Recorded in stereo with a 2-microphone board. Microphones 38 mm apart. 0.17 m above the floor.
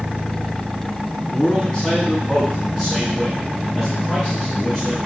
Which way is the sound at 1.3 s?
25° left (ahead or behind).